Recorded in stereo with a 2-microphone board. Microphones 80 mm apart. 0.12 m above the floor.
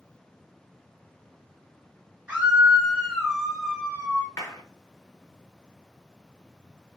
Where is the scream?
15° right (ahead or behind), 2.5 m; by 4.3 s 15° left (ahead or behind), 2.5 m.